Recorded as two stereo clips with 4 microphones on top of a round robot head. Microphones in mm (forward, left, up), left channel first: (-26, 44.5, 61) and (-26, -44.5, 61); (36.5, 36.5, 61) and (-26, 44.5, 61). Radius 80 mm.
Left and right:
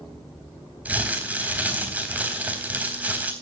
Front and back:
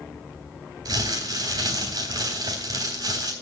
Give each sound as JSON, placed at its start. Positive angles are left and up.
{"t": 0.8, "sound": "crumpling", "azimuth_deg": -160, "distance_m": 3.5}